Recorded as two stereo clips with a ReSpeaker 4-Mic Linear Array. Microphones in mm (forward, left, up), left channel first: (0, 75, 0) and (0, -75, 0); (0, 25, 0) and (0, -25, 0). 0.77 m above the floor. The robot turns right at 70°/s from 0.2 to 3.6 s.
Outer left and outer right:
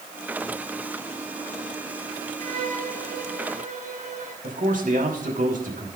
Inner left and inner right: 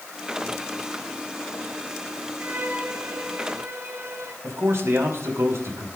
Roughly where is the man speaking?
Right.